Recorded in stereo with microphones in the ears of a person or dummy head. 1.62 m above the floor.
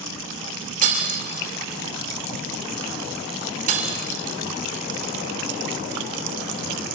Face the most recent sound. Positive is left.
turn(degrees=-45)  # may be behind; listen again after turning